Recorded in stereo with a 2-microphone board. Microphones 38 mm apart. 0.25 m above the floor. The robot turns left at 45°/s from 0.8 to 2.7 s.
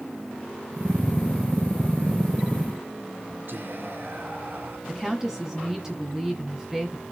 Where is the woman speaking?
15° right (ahead or behind), 2 m.